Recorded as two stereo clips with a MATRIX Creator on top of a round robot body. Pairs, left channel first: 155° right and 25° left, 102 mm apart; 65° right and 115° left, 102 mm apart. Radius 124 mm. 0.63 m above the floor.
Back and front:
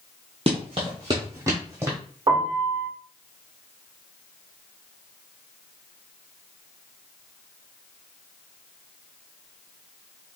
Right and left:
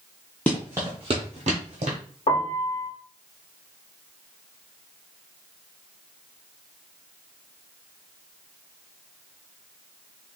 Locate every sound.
0.5 s running footsteps: 5° left, 0.6 m; by 2.0 s 95° left, 1.1 m
2.3 s a piano: 35° right, 1.0 m